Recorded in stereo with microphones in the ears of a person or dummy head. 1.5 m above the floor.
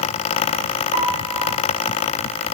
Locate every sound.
0.9 s a piano: 60° right (ahead or behind), 6.5 m